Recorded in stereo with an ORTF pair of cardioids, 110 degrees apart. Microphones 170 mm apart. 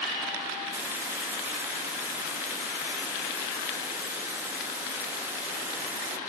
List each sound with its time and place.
0.7 s a hiss: 15° right